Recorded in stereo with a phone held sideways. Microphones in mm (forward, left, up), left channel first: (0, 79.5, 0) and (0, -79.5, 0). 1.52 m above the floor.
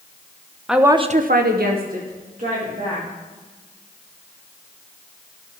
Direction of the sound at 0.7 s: 5° right (ahead or behind).